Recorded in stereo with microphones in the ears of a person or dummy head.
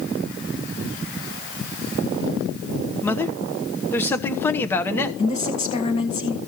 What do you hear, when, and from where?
3.0 s a man speaking: 10° left (ahead or behind), 0.9 m
5.2 s a woman speaking: 35° left (ahead or behind), 1.8 m